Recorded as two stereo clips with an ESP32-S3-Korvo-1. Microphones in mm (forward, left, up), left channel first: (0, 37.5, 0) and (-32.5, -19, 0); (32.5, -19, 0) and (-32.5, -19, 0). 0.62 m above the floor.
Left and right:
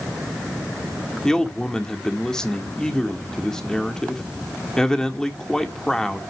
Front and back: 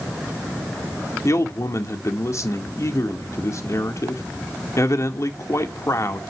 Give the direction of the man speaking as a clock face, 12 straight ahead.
1 o'clock.